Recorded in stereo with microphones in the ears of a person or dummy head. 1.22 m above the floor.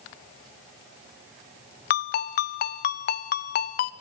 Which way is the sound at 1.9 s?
45° left (ahead or behind).